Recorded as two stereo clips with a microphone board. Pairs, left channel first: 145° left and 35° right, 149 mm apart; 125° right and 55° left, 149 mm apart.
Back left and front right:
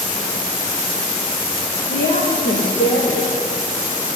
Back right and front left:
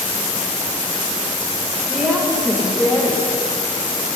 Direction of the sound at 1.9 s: 140° left.